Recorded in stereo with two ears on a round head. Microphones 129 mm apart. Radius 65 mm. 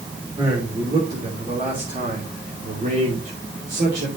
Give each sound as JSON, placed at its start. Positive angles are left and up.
{"t": 0.4, "sound": "a man speaking", "side_deg": -30, "distance_m": 3.0}